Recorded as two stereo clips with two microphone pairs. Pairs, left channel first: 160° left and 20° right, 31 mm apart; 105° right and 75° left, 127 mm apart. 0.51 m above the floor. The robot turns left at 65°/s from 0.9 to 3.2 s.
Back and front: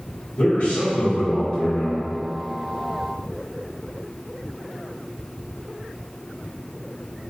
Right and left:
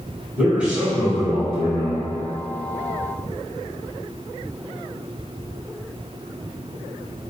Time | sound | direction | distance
0.4 | a man speaking | 160° left | 1.7 m